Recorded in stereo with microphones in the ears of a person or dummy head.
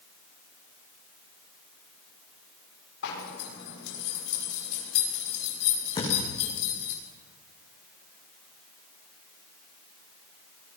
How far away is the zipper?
About 6 m.